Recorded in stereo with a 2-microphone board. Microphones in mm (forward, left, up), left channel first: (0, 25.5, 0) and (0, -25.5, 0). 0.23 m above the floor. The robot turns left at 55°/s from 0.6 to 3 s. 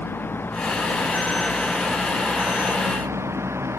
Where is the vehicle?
45° left (ahead or behind); by 3.8 s 65° right (ahead or behind).